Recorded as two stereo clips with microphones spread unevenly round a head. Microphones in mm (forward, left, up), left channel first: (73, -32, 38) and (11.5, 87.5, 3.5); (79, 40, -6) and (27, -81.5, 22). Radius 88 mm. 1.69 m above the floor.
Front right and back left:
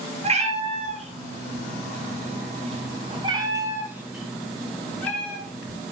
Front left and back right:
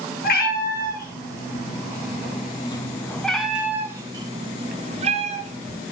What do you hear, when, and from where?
0.2 s a cat meowing: 75° left, 3.5 m; by 5.8 s 130° right, 3.5 m